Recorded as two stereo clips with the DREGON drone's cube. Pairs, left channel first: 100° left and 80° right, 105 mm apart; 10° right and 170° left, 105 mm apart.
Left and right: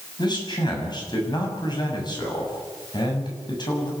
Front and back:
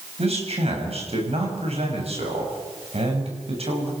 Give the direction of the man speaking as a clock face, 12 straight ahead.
7 o'clock.